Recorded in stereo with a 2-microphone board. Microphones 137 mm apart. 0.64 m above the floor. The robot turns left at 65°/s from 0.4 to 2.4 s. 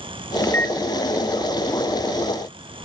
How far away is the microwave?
About 0.8 m.